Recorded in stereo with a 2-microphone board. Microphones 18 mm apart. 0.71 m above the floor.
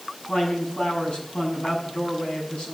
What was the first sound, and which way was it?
A man speaking, 75° left (ahead or behind).